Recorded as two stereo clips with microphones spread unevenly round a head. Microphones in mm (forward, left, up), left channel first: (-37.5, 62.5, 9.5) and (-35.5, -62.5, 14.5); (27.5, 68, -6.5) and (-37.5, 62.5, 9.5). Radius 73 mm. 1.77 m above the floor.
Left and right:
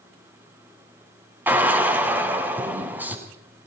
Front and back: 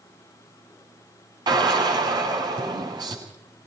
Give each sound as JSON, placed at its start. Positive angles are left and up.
{"t": 1.5, "sound": "a drill", "azimuth_deg": -165, "distance_m": 8.5}